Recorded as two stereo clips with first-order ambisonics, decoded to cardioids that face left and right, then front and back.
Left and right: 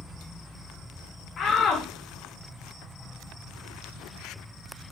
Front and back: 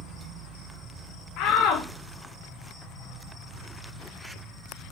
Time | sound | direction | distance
1.4 | a shout | 30° left | 0.8 m